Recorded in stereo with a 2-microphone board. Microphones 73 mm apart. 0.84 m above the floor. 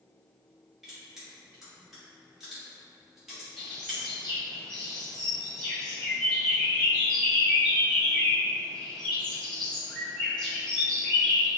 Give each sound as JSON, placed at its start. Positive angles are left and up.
{"t": 0.8, "sound": "crushing", "side_deg": -5, "distance_m": 1.4}
{"t": 3.6, "sound": "a bird", "side_deg": 10, "distance_m": 1.3}